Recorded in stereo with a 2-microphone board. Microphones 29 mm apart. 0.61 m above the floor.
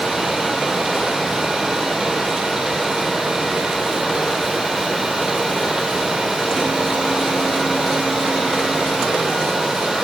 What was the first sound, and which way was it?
Only background noise.